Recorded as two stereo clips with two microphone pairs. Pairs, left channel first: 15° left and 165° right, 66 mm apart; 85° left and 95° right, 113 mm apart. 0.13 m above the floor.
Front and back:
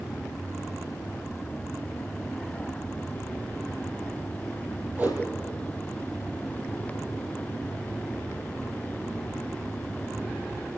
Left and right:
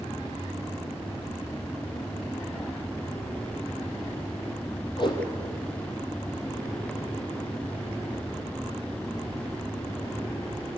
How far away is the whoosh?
About 3.5 m.